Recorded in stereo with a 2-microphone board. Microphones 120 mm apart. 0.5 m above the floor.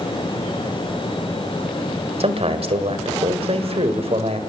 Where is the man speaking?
55° right (ahead or behind), 2 m.